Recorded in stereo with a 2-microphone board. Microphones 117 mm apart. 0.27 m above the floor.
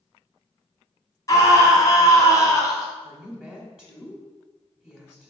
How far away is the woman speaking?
About 1.4 m.